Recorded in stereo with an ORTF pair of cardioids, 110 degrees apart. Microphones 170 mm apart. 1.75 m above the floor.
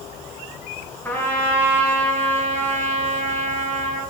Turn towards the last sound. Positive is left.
turn(degrees=15)